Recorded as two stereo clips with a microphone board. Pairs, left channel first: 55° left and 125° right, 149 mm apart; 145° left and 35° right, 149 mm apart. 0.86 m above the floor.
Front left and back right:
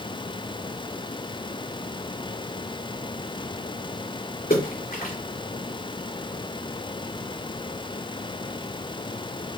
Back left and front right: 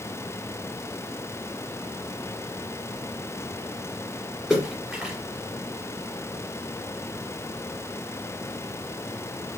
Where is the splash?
50° left, 3 m.